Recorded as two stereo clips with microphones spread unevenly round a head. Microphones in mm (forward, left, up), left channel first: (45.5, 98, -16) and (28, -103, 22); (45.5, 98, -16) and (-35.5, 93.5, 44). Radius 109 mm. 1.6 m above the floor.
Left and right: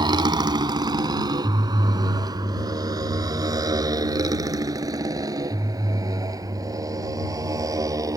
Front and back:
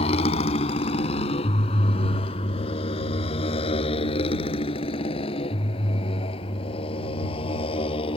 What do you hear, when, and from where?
0.0 s a motorcycle: 30° right; by 8.2 s 25° right